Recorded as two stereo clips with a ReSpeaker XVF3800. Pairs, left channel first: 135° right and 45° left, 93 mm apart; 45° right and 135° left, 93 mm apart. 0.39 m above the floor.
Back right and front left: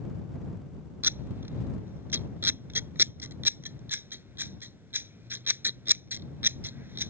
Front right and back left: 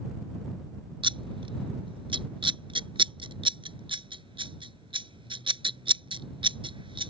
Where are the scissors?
110° left.